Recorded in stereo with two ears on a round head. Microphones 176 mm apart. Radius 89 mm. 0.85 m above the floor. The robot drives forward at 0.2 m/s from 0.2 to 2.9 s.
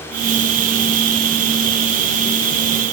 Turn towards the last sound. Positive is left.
No sound to turn to.